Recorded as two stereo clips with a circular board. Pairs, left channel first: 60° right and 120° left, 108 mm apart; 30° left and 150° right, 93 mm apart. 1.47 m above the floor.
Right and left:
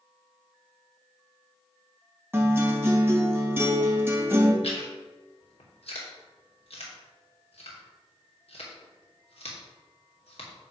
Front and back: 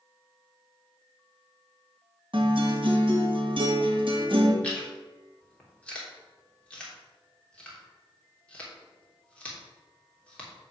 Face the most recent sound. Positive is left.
turn(degrees=-45)